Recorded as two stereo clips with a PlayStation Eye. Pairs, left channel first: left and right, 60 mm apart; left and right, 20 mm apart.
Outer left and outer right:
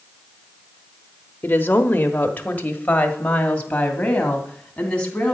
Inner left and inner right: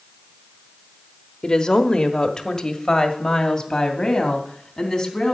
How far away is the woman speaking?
About 1.0 m.